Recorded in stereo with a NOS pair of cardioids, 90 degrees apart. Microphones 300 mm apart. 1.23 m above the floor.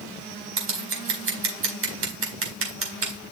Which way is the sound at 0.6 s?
45° right.